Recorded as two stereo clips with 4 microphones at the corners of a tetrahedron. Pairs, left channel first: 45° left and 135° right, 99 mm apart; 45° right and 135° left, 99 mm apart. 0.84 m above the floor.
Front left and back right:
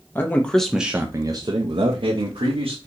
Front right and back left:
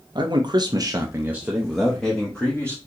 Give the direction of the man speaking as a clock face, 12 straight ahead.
8 o'clock.